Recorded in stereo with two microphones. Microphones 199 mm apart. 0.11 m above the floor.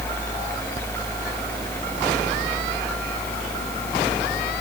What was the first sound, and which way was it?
Only background noise.